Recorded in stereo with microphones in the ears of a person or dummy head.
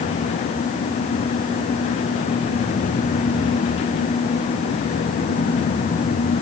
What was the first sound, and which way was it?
Only background noise.